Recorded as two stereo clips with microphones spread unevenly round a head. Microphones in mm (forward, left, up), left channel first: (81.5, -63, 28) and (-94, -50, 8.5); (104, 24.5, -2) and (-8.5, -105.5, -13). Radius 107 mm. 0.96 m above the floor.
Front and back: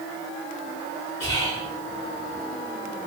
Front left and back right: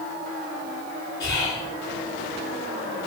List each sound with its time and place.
1.2 s whispering: 100° left, 1.9 m